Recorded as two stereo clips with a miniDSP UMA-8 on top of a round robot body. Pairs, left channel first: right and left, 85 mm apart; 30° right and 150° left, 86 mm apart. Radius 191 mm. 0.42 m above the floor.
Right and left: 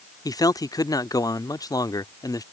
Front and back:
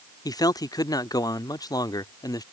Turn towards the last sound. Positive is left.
turn(degrees=-60)